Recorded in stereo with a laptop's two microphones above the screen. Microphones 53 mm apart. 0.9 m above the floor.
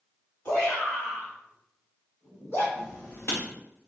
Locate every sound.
0.5 s a shout: 55° left (ahead or behind), 1.8 m; by 2.6 s 60° left (ahead or behind), 3 m
2.8 s writing: 45° left (ahead or behind), 2 m